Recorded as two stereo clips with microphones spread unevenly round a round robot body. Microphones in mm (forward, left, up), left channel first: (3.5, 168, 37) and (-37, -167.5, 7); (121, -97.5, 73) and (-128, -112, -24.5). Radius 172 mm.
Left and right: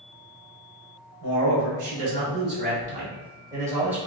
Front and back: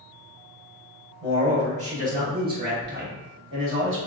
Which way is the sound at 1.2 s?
120° right.